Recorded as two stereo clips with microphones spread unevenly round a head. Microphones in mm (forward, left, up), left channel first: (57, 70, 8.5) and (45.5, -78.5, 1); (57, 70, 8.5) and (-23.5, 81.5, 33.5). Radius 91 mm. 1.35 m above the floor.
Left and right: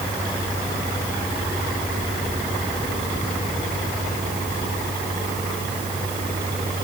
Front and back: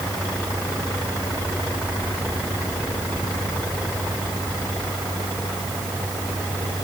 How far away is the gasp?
No gasp in this recording.